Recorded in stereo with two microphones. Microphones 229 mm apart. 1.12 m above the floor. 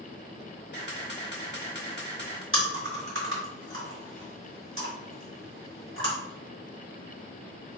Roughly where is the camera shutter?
Left.